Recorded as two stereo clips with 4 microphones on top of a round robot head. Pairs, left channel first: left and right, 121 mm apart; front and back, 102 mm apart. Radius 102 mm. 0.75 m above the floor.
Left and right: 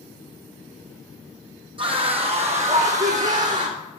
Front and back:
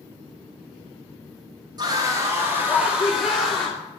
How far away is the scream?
About 1.8 m.